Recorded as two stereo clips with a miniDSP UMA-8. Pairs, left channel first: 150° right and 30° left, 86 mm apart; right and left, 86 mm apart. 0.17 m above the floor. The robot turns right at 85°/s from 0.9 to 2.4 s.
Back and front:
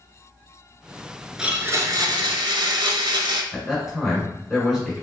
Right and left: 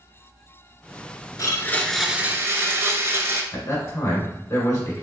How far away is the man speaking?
About 1.6 m.